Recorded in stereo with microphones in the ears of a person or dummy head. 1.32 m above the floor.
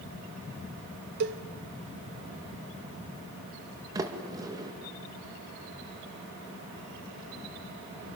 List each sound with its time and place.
1.2 s a cowbell: 50° right (ahead or behind), 0.8 m
4.0 s a sliding door: 20° right (ahead or behind), 2 m